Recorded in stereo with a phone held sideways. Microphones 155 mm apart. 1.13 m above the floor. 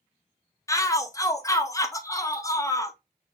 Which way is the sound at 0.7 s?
20° left (ahead or behind).